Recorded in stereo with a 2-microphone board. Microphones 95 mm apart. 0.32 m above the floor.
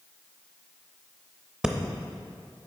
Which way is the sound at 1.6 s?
10° right (ahead or behind).